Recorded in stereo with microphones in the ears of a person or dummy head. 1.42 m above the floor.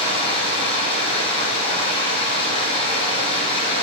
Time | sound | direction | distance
0.0 | running water | 30° left (ahead or behind) | 8.5 m